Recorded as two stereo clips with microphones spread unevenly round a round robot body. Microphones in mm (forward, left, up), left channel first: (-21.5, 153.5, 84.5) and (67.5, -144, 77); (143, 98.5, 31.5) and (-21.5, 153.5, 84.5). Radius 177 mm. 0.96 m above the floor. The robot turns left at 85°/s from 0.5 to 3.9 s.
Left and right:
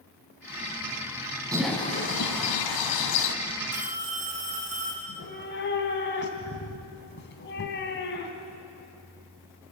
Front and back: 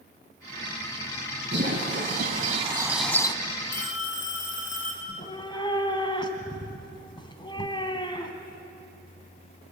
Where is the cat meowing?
50° left, 3 m.